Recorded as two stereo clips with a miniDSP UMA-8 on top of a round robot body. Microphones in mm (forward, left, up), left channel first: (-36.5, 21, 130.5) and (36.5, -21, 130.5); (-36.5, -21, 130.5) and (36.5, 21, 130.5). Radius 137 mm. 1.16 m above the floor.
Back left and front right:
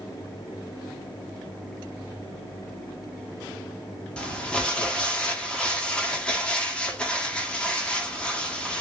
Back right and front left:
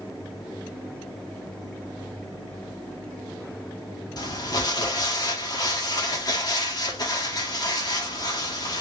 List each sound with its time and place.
4.2 s crumpling: 135° right, 0.8 m